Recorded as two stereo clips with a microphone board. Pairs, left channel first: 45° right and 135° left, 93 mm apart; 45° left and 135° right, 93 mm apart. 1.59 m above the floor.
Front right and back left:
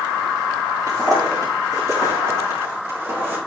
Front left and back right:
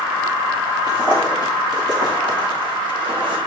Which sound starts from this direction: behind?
Footsteps, at 0.9 s.